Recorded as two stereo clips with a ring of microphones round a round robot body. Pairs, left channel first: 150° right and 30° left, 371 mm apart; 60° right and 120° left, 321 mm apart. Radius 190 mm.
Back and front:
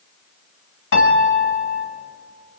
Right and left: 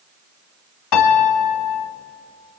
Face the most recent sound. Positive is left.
turn(degrees=-90)